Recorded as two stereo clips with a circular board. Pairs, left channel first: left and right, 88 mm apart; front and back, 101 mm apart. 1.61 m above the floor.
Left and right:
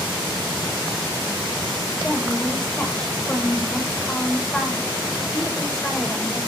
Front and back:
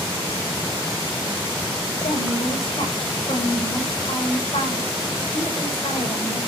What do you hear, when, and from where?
2.0 s a woman speaking: 10° left, 8.5 m